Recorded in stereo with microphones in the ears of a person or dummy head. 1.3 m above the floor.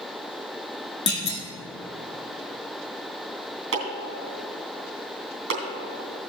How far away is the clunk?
About 1.3 m.